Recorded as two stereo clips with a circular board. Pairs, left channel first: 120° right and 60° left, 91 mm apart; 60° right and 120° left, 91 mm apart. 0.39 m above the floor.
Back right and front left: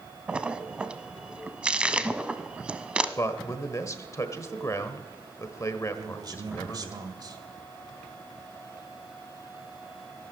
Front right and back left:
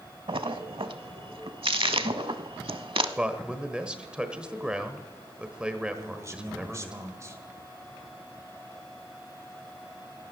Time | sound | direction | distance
0.3 | a splash | 135° left | 0.6 m
3.2 | a man speaking | 165° right | 1.2 m
5.9 | a man speaking | 75° left | 1.7 m